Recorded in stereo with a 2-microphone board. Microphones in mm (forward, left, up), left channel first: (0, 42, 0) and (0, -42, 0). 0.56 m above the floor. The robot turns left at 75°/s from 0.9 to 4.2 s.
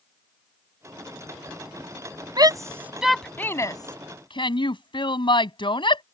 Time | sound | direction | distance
2.4 | a shout | 55° right (ahead or behind) | ?